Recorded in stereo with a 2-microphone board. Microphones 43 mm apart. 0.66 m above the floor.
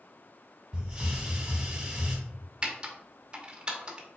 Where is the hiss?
10° right (ahead or behind), 2.0 m.